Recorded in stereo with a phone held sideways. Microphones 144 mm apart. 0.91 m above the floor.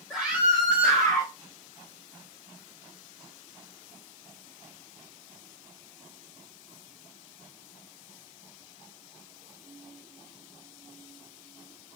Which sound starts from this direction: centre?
A scream, at 0.1 s.